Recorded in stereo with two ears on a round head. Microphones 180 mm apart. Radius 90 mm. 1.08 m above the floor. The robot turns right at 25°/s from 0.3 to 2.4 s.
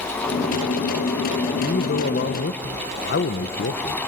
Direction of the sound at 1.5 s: 40° left (ahead or behind).